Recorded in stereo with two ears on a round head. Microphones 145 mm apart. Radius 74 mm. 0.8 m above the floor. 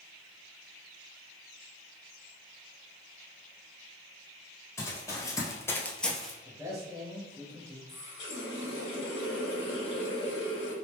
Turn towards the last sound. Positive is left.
turn(degrees=85)